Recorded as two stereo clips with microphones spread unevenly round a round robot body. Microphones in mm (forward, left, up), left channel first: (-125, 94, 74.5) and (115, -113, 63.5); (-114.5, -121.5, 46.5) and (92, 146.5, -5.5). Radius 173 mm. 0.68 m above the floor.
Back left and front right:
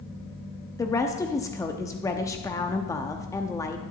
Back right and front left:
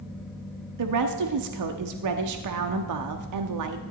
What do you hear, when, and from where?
0.8 s a woman speaking: 60° left, 0.8 m